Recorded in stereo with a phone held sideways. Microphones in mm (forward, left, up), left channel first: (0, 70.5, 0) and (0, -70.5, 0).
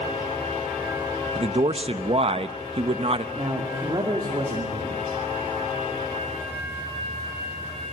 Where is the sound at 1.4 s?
45° right (ahead or behind), 1.0 m.